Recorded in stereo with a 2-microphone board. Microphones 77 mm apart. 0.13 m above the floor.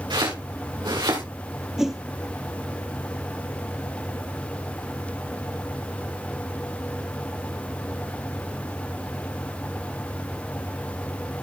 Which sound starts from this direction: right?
Chopping, at 0.1 s.